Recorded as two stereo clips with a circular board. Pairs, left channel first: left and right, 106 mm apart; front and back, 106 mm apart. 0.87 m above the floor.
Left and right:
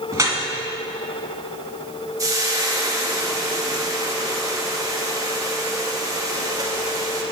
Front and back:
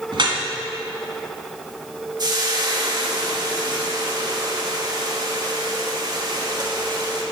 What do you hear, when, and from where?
0.1 s dripping: 150° right, 1.6 m
2.2 s frying: 140° right, 1.3 m